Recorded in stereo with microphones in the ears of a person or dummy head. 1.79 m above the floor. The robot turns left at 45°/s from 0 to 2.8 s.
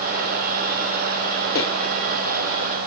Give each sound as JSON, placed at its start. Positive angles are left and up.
{"t": 1.6, "sound": "footsteps", "side_deg": 45, "distance_m": 3.0}